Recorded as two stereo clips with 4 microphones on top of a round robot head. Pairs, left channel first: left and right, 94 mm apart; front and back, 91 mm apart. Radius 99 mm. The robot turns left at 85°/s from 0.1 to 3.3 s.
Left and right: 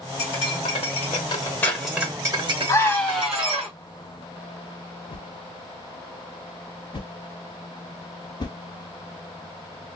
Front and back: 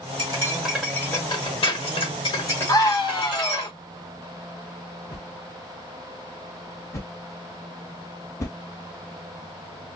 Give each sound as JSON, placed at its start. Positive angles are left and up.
{"t": 0.2, "sound": "cutlery clinking", "azimuth_deg": 140, "distance_m": 1.8}
{"t": 2.7, "sound": "a scream", "azimuth_deg": 45, "distance_m": 1.7}
{"t": 5.1, "sound": "a whoosh", "azimuth_deg": 55, "distance_m": 1.1}